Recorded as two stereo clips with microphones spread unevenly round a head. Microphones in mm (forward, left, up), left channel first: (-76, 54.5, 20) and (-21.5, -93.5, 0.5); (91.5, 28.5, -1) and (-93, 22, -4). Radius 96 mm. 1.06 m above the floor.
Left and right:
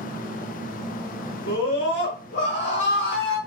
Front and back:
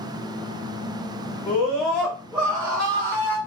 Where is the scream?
85° left, 1.9 m; by 3.4 s 120° left, 2 m.